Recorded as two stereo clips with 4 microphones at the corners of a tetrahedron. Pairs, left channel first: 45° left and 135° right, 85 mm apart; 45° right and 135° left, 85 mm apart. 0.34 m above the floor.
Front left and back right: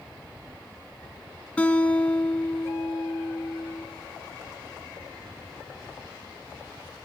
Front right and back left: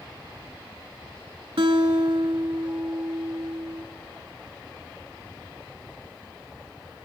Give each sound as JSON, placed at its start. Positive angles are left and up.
{"t": 1.6, "sound": "a guitar", "azimuth_deg": 120, "distance_m": 0.8}